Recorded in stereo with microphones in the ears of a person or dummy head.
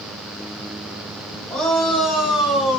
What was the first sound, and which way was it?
A shout, 5° left (ahead or behind).